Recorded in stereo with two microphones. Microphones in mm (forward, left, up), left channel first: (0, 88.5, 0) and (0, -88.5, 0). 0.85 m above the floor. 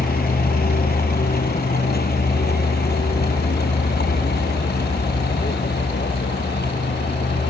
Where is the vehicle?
60° left (ahead or behind); by 7.5 s 70° left (ahead or behind).